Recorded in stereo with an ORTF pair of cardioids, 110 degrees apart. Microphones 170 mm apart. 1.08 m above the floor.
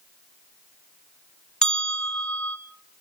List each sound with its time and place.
1.6 s a bell: 5° left, 2 m